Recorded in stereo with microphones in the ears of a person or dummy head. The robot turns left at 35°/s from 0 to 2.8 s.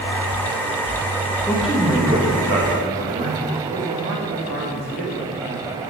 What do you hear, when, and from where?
1.5 s a man speaking: 5° left, 2 m; by 3.4 s 40° right, 2 m
3.7 s a man speaking: 65° right (ahead or behind), 2 m